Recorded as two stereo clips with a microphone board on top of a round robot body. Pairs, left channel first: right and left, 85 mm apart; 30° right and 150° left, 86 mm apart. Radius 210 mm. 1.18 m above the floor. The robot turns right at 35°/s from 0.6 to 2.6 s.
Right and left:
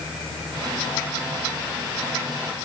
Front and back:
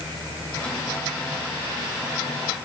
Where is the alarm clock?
No alarm clock in this recording.